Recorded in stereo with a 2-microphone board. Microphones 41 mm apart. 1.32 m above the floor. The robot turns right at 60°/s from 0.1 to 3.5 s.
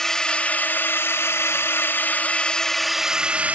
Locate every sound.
0.0 s a drone: 10° left; by 3.6 s 145° right